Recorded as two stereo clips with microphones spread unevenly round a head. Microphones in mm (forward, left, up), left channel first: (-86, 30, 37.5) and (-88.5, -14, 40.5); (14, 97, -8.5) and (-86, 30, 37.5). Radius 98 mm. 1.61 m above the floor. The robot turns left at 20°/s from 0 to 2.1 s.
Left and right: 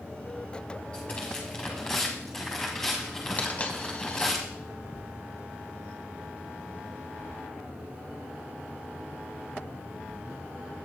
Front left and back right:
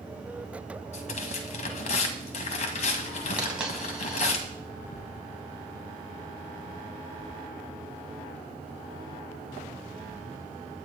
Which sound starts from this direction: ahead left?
Tearing paper, at 0.9 s.